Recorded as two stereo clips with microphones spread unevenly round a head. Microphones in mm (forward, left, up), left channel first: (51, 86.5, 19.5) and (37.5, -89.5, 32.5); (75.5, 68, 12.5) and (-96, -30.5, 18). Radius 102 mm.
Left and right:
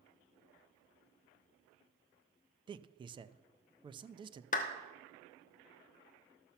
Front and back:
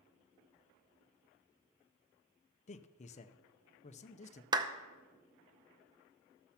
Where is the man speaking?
30° right, 0.6 m.